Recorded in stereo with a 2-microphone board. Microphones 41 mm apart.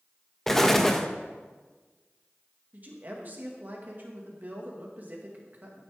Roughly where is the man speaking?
Right.